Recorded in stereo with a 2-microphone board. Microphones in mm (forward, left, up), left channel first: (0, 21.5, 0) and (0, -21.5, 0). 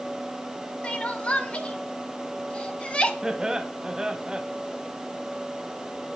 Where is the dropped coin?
I don't hear a dropped coin.